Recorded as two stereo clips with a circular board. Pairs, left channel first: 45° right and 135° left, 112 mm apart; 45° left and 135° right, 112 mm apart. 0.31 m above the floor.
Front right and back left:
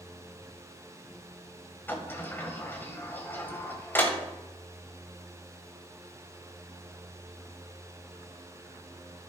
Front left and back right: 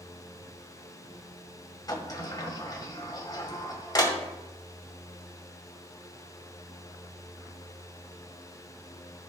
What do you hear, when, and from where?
1.9 s a sliding door: 15° left, 1.5 m